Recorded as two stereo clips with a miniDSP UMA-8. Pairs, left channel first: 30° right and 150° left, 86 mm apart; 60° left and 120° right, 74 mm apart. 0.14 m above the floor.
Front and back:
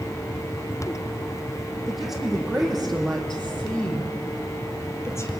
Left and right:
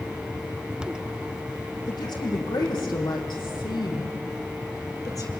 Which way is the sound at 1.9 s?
65° left.